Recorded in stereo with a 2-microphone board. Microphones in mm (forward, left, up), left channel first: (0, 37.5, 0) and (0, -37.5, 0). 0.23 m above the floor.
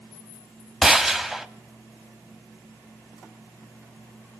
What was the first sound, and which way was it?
A gunshot, 5° right (ahead or behind).